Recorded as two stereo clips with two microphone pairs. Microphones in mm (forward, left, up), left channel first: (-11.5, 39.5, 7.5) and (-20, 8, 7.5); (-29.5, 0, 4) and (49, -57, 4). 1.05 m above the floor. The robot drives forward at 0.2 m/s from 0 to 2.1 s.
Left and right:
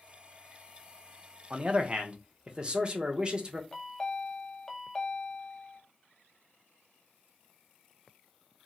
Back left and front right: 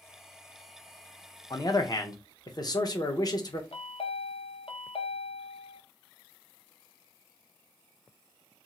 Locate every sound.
1.5 s a man speaking: 165° right, 0.5 m
3.7 s a chime: 145° left, 0.5 m